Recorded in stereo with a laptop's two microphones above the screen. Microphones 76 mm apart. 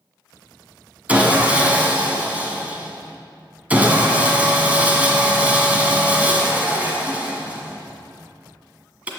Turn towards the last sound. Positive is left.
turn(degrees=-20)  # may be behind; listen again after turning